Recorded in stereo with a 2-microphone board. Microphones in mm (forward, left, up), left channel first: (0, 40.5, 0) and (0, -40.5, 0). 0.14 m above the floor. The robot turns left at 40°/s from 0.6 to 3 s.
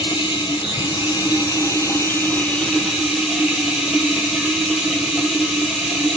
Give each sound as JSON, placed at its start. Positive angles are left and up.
{"t": 0.0, "sound": "running water", "azimuth_deg": 90, "distance_m": 1.1}